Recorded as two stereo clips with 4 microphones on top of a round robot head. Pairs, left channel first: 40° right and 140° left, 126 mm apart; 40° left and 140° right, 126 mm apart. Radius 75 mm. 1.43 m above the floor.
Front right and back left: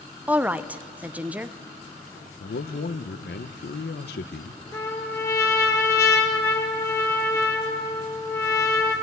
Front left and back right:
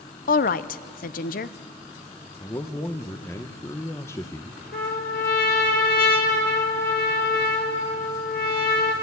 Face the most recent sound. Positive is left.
turn(degrees=30)